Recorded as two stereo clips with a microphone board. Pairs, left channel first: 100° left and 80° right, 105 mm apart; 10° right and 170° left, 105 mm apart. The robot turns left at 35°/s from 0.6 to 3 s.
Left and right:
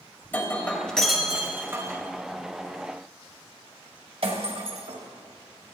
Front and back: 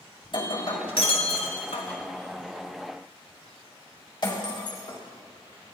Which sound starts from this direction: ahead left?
Breaking glass, at 0.2 s.